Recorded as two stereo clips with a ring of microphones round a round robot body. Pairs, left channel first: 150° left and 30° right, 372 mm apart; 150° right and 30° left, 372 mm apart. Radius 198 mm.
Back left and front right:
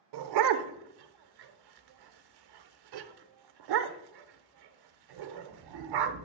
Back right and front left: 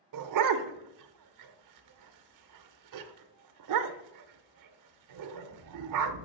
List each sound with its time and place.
0.1 s a dog barking: 10° right, 0.6 m